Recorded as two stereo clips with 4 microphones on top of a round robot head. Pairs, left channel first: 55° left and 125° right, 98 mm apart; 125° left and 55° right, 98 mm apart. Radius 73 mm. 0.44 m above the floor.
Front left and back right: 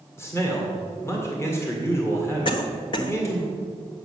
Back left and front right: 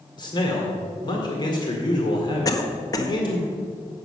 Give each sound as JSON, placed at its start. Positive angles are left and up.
{"t": 0.2, "sound": "a man speaking", "azimuth_deg": 110, "distance_m": 2.0}
{"t": 2.5, "sound": "a cough", "azimuth_deg": 80, "distance_m": 1.4}